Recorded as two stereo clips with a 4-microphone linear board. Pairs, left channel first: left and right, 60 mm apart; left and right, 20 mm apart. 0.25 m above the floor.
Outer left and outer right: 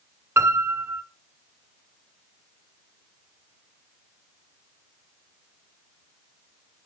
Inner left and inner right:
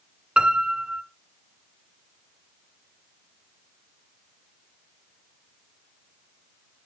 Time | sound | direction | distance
0.4 | a piano | 45° right (ahead or behind) | 2.0 m